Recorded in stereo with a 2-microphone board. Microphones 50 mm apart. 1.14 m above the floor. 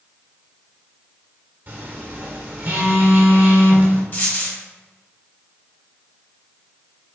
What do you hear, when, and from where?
1.7 s a phone buzzing: 40° right (ahead or behind), 1.2 m
4.1 s a dropped coin: 40° left (ahead or behind), 1.2 m